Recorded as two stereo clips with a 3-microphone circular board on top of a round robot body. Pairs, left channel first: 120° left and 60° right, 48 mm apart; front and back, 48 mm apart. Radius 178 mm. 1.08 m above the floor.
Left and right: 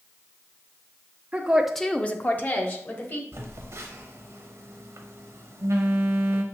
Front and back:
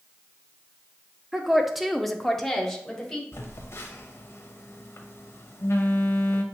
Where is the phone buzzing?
35° right, 0.7 m.